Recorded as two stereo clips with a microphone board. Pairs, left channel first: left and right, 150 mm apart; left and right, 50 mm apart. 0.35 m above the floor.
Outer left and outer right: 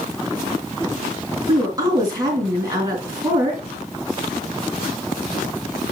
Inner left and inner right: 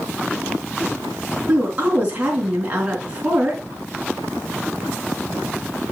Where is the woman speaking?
25° right (ahead or behind), 3.5 m.